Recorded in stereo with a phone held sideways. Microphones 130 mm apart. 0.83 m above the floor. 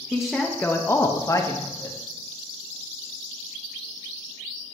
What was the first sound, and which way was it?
A woman speaking, 5° right (ahead or behind).